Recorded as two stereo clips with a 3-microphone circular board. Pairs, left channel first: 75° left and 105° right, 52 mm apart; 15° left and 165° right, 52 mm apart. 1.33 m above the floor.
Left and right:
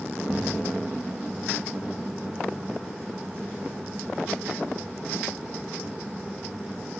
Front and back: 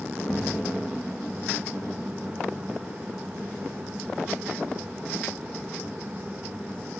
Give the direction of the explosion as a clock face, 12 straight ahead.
2 o'clock.